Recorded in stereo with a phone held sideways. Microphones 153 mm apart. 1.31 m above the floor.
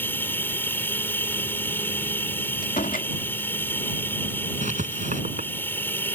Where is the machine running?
15° left (ahead or behind).